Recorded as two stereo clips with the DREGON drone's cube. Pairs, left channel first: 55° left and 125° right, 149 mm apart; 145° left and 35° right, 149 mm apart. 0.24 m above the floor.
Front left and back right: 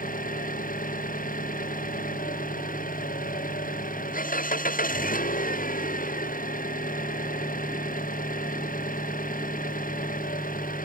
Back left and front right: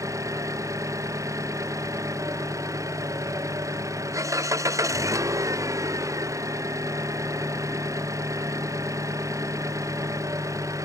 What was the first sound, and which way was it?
An engine running, 35° left.